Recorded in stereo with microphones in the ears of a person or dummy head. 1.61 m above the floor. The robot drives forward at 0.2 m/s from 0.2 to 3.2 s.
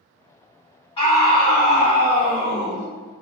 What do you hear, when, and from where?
1.0 s a scream: 25° left (ahead or behind), 1.4 m; by 2.9 s 20° left (ahead or behind), 1.8 m